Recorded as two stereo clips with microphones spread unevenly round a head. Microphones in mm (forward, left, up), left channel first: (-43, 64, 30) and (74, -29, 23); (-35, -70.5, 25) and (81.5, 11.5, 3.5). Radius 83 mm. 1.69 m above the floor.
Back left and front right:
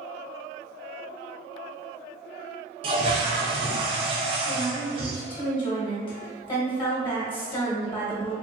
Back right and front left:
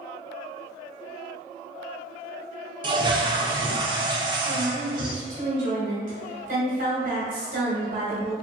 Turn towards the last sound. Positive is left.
turn(degrees=85)